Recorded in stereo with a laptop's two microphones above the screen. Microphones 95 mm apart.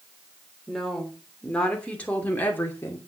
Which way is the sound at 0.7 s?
5° left (ahead or behind).